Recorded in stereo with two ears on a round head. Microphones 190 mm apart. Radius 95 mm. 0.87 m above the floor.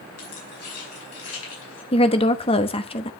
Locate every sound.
0.2 s keys jangling: 85° left, 5.5 m; by 1.8 s 75° left (ahead or behind), 5.5 m
1.9 s a woman speaking: 25° left (ahead or behind), 1.0 m